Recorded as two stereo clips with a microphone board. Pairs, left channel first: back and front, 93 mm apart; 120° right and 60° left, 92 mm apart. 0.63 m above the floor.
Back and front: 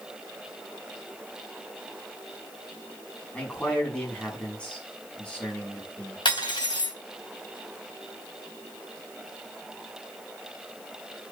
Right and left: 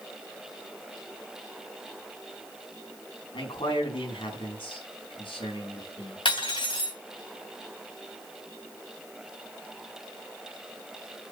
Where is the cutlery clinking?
145° right, 2.5 m.